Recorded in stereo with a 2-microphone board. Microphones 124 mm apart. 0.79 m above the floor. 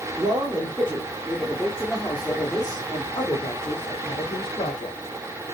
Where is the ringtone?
No ringtone in this recording.